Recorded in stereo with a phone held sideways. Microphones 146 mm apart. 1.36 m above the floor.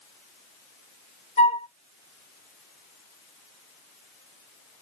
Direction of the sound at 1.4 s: 50° left (ahead or behind).